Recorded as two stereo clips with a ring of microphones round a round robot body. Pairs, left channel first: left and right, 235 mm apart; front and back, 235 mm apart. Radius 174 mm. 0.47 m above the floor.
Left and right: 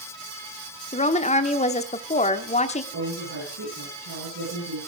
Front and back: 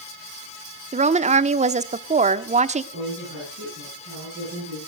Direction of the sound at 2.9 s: 125° right.